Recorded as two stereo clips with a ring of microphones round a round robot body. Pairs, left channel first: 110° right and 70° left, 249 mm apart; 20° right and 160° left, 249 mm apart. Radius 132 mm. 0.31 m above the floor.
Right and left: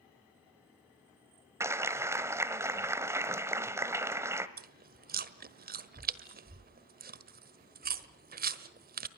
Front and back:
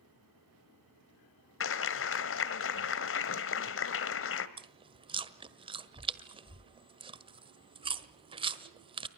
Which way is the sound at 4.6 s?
100° left.